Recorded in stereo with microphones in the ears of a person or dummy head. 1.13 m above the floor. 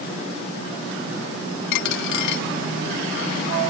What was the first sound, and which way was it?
A dropped coin, 65° left (ahead or behind).